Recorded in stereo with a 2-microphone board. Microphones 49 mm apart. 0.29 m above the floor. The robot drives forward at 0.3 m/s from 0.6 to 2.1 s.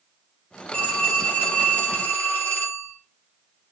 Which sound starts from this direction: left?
A phone ringing, at 0.7 s.